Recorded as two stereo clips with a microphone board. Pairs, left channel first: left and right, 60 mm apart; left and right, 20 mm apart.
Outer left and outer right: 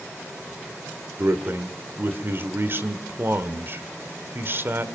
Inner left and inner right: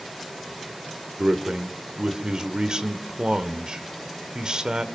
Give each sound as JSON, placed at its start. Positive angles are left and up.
{"t": 1.2, "sound": "a man speaking", "side_deg": -45, "distance_m": 1.7}